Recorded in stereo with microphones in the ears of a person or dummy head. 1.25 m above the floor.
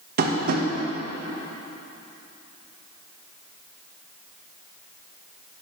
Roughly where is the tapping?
Right.